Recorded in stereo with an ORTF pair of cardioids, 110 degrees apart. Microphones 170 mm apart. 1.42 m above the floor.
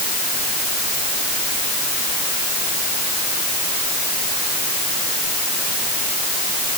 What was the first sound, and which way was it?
Only background noise.